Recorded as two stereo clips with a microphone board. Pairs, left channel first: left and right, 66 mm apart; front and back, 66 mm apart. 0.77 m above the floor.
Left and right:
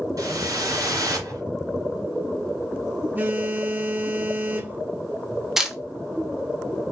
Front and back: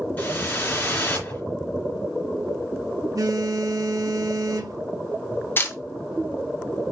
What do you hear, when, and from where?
0.2 s a whoosh: 65° right, 2.5 m
3.1 s a phone buzzing: 150° right, 0.8 m
5.6 s a camera shutter: 10° right, 0.9 m